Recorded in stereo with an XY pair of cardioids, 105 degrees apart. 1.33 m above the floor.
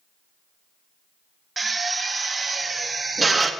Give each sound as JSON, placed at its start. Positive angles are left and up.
{"t": 1.6, "sound": "a drill", "azimuth_deg": -25, "distance_m": 1.8}